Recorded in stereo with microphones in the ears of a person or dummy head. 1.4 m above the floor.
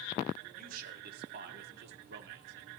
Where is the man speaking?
50° right (ahead or behind), 3.5 m; by 2.7 s 70° right (ahead or behind), 4 m.